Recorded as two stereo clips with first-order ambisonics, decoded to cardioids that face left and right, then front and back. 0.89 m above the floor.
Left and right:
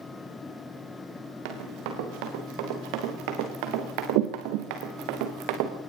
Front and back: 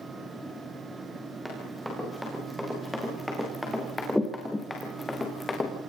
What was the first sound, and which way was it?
Running footsteps, 95° right.